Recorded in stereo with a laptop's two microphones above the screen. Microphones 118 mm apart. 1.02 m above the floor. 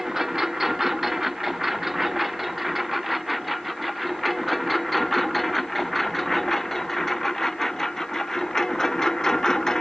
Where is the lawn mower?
Centre (ahead or behind); by 9.8 s 5° left (ahead or behind).